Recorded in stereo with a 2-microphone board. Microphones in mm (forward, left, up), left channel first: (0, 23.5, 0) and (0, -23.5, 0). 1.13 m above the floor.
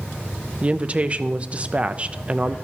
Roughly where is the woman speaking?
Right.